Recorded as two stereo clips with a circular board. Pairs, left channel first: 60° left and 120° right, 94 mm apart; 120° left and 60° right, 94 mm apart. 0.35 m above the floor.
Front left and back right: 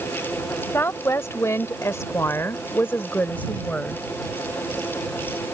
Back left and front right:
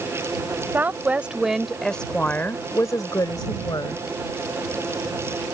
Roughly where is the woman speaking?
Ahead.